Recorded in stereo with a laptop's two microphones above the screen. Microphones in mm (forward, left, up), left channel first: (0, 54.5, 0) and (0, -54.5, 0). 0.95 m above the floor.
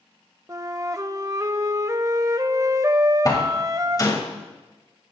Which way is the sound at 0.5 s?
30° right (ahead or behind).